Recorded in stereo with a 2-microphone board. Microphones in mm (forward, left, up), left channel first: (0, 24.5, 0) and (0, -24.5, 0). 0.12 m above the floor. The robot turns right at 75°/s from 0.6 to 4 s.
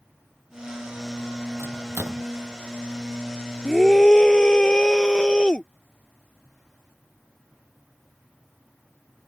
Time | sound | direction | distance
1.6 | a microwave | 70° right (ahead or behind) | ?
3.6 | a scream | centre (ahead or behind) | ?